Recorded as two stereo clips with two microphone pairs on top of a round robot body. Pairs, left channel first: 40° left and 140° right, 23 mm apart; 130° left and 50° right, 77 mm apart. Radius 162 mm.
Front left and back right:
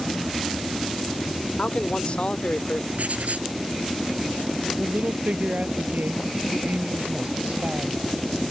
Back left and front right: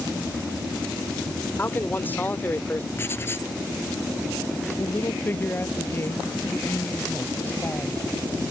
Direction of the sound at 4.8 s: 165° right.